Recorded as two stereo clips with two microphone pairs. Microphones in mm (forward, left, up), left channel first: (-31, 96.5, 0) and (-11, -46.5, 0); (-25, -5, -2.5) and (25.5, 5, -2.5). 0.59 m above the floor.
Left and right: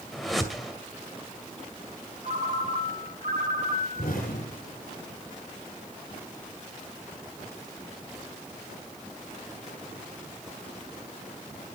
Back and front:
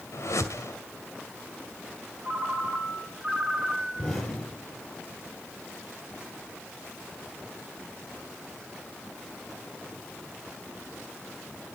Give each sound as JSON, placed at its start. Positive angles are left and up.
{"t": 0.1, "sound": "a whoosh", "azimuth_deg": -175, "distance_m": 2.0}
{"t": 2.2, "sound": "a ringtone", "azimuth_deg": -70, "distance_m": 2.5}
{"t": 4.0, "sound": "an explosion", "azimuth_deg": 120, "distance_m": 7.5}